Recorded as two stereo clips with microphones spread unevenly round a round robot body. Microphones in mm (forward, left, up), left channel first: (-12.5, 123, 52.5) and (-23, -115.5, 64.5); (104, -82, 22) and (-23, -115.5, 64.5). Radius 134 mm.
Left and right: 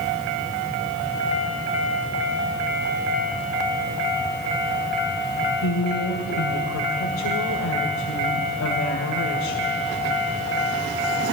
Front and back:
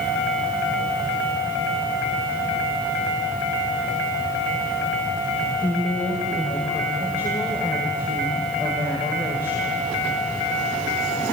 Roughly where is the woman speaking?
Left.